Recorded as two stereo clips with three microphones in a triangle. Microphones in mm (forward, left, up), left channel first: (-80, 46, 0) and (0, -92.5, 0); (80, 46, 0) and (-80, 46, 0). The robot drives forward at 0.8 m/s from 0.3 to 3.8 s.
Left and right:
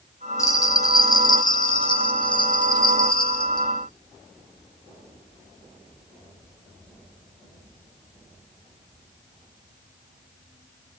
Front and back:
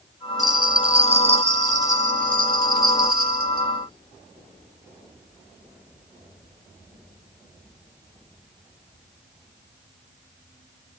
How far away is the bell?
About 1.7 m.